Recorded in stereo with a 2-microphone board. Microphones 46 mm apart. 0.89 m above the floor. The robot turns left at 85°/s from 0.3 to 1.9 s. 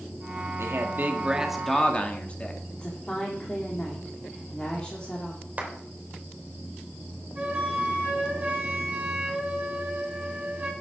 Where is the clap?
35° right (ahead or behind), 3 m.